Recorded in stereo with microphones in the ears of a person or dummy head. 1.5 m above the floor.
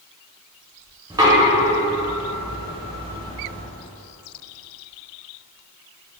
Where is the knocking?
15° right (ahead or behind), 0.5 m.